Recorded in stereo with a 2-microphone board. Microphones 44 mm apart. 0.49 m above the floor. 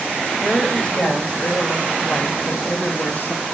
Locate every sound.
0.4 s a woman speaking: 20° left (ahead or behind), 2.5 m; by 3.5 s 55° left (ahead or behind), 2 m